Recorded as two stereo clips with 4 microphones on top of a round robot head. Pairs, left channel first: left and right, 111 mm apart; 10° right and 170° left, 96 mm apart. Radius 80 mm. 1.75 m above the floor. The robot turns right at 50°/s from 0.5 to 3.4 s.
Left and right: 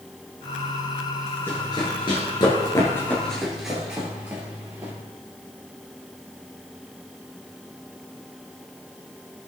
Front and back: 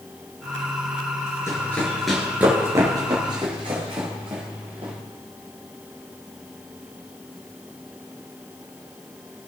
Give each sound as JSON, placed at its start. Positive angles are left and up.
{"t": 1.5, "sound": "running footsteps", "azimuth_deg": 25, "distance_m": 2.0}